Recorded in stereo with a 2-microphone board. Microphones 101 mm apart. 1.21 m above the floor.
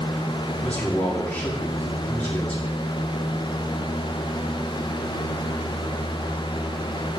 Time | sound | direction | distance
0.6 | a man speaking | 15° left (ahead or behind) | 3.5 m